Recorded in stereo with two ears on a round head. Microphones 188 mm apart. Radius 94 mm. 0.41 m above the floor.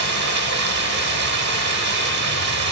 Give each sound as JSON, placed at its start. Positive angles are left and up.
{"t": 0.0, "sound": "running water", "side_deg": -55, "distance_m": 0.9}